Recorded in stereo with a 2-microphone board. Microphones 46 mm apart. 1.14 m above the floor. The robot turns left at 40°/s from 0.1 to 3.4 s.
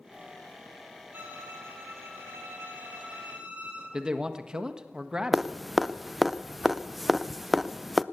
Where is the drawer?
I don't hear a drawer.